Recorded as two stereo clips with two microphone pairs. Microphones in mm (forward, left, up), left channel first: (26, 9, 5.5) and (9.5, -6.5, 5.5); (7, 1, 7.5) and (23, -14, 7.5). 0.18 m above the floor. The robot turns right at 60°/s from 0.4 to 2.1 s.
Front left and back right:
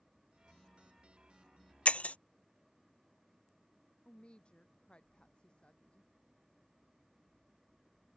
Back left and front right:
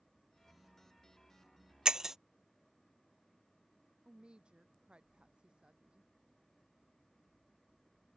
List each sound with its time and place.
1.9 s breaking glass: 15° left; by 2.2 s 30° left
4.0 s a woman speaking: 5° left